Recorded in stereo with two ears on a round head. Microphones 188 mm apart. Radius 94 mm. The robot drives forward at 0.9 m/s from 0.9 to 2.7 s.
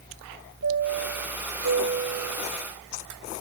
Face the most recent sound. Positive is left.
turn(degrees=-60)  # may be behind; listen again after turning